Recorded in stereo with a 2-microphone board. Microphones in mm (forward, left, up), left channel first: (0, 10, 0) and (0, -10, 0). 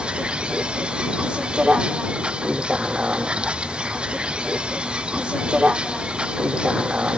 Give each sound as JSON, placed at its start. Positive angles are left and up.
{"t": 0.0, "sound": "a vehicle", "side_deg": -80}